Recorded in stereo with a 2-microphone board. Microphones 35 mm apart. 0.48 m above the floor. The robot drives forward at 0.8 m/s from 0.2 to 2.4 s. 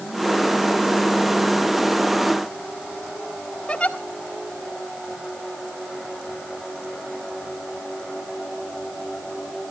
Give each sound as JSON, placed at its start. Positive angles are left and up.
{"t": 3.7, "sound": "a giggle", "side_deg": 30, "distance_m": 2.0}